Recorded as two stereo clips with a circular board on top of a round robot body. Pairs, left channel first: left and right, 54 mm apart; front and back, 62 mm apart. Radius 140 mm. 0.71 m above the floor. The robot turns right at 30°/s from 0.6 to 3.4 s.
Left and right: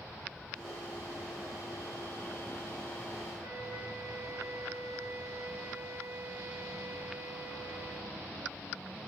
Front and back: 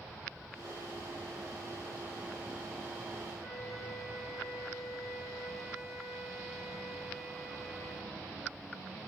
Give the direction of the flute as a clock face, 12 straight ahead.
3 o'clock.